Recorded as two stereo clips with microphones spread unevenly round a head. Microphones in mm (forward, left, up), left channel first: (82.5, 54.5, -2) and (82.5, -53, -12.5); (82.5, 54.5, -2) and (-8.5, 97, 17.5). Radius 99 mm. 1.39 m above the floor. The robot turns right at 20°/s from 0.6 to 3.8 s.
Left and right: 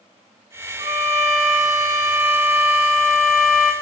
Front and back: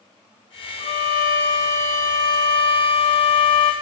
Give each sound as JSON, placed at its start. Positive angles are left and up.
{"t": 0.8, "sound": "a violin", "azimuth_deg": -55, "distance_m": 1.7}